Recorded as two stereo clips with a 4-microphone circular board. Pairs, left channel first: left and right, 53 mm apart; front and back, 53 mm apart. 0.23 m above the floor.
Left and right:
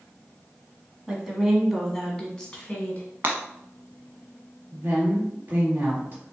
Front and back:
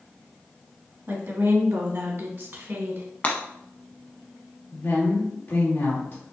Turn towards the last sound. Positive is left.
turn(degrees=-45)